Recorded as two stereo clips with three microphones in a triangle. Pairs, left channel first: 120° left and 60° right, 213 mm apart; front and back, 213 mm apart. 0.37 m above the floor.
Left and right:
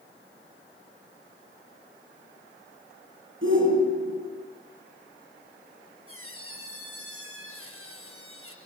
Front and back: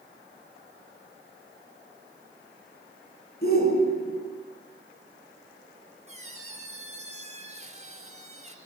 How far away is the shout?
About 6 m.